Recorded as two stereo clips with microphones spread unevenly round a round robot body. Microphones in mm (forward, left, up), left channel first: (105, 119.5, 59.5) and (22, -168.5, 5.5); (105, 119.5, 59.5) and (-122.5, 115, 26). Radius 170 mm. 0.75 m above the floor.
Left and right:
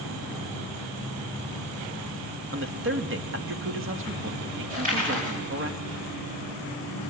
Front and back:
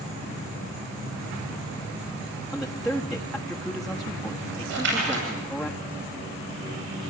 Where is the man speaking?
95° right, 1.4 m.